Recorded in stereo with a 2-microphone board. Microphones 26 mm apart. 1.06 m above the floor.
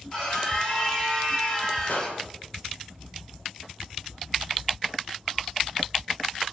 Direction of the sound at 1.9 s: 75° left (ahead or behind).